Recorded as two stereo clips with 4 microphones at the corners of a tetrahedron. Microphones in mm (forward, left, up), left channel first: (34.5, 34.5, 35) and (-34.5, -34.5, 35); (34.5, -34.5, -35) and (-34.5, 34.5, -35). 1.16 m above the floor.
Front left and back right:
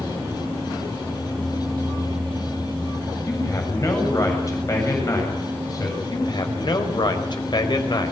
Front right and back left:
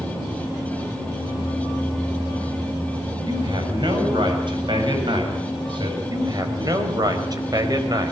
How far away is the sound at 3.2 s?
About 7.5 m.